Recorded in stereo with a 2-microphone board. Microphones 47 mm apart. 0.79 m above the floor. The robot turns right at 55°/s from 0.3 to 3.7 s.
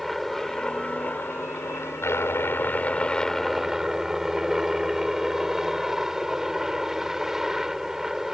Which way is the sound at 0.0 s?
5° left.